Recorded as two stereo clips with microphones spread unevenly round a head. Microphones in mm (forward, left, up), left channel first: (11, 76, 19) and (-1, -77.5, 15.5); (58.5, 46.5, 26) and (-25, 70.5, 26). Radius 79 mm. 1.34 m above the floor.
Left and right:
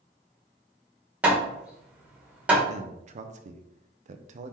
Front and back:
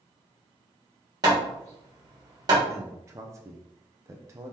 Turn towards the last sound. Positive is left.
turn(degrees=-135)